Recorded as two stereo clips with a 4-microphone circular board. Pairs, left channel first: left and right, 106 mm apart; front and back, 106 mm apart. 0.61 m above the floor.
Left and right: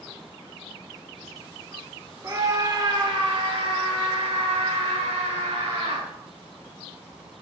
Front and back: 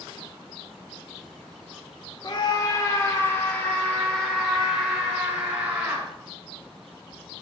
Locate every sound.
2.2 s a scream: 35° right, 1.7 m; by 6.1 s 105° right, 3 m